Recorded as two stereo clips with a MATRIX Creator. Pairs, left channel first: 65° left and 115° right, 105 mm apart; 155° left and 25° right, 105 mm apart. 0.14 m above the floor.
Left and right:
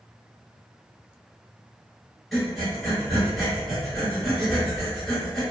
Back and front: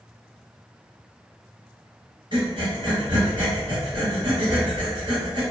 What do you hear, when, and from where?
2.3 s breathing: 25° right, 1.3 m